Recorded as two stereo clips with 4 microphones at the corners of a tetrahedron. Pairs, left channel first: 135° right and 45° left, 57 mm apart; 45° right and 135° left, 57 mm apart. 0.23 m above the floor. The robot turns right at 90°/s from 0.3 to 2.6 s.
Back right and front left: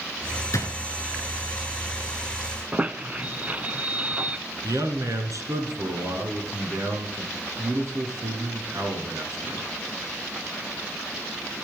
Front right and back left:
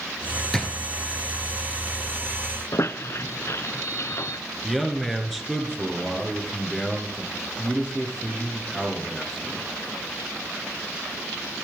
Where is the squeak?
20° right, 0.5 m.